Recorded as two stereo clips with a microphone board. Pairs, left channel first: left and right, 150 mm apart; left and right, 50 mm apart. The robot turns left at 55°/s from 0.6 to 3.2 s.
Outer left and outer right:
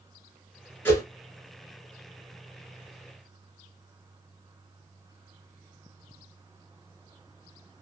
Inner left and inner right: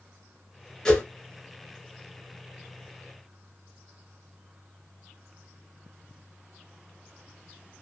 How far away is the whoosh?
About 1.1 m.